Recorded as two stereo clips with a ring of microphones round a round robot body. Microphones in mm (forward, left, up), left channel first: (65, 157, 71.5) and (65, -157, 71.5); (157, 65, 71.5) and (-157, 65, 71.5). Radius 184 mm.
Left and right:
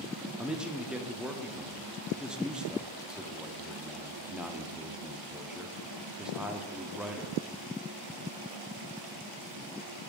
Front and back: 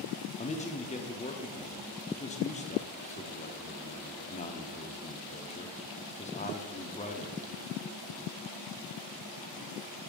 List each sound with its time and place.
0.4 s a man speaking: 5° right, 0.8 m